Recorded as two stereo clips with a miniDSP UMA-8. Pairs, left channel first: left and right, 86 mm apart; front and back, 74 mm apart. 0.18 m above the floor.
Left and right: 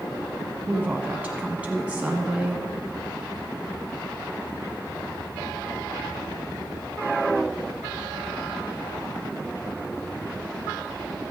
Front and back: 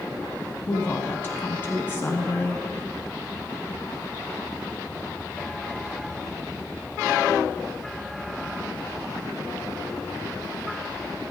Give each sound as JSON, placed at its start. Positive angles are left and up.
{"t": 0.7, "sound": "a woman speaking", "azimuth_deg": -30, "distance_m": 1.1}